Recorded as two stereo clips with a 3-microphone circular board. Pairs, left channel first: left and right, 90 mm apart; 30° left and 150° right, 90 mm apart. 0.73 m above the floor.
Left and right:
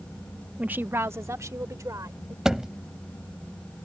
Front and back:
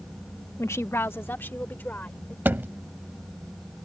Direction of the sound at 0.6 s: 20° right.